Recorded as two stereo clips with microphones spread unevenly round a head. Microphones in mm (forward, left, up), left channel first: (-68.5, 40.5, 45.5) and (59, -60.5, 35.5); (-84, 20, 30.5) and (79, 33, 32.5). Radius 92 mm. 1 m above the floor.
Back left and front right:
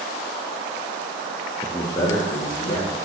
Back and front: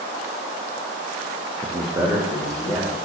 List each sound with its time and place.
1.6 s a man speaking: 40° left, 0.5 m; by 3.0 s 85° left, 2.5 m